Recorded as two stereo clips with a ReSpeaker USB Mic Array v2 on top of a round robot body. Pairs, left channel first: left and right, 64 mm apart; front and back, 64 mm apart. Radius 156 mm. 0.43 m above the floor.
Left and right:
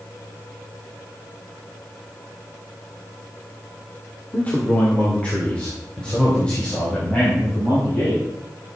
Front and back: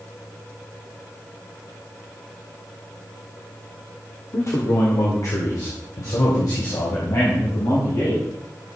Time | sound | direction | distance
4.3 | a man speaking | 30° left | 1.9 m